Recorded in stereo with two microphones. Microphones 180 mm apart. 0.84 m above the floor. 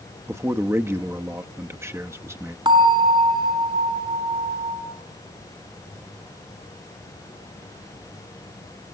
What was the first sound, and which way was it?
A man speaking, 15° right (ahead or behind).